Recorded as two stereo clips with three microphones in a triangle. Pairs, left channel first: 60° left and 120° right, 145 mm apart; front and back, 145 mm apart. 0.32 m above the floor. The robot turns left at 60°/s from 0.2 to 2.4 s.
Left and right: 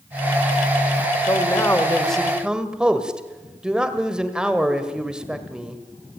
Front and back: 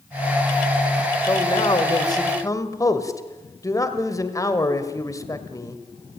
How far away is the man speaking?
About 1.7 m.